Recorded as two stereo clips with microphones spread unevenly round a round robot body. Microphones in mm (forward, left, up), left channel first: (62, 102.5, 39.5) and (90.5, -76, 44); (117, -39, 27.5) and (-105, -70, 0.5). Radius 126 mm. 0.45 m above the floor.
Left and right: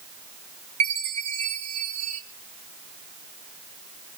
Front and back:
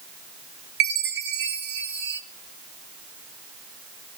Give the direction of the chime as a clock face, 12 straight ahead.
5 o'clock.